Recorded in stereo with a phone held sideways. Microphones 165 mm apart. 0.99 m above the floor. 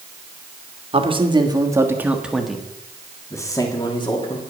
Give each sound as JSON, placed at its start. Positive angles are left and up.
{"t": 0.9, "sound": "a man speaking", "side_deg": -35, "distance_m": 1.5}